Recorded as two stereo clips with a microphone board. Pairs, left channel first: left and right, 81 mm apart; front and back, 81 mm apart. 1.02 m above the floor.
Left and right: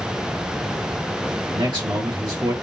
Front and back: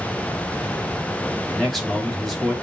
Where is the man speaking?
85° right, 2.5 m.